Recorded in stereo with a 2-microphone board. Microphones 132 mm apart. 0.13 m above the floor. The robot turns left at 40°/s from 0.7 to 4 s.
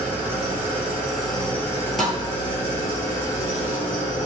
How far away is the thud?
About 0.8 m.